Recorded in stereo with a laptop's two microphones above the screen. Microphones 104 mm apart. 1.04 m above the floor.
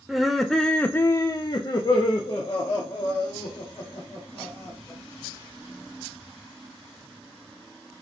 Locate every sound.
0.1 s laughter: 5° right (ahead or behind), 0.9 m; by 5.0 s 30° left (ahead or behind), 2.5 m